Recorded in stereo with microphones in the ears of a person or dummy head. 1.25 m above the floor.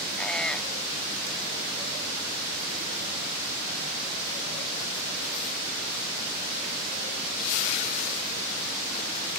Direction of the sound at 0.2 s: 5° left (ahead or behind).